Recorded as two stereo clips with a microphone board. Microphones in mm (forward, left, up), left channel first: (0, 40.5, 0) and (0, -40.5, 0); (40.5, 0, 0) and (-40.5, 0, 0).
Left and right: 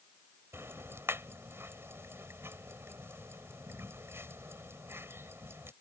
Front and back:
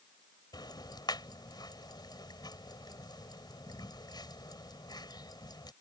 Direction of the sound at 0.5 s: 30° right.